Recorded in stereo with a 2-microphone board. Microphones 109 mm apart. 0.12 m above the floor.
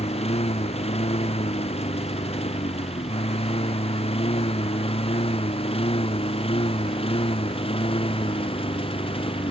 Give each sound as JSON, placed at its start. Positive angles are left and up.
{"t": 0.0, "sound": "a lawn mower", "side_deg": 75}